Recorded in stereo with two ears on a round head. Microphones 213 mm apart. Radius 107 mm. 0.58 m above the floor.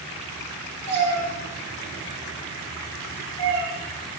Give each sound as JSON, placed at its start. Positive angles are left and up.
{"t": 0.9, "sound": "a cat meowing", "side_deg": -80, "distance_m": 8.0}